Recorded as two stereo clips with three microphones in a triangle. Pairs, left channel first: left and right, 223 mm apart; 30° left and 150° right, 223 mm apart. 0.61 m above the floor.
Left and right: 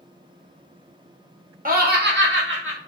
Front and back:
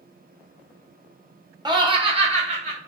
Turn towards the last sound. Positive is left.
turn(degrees=-90)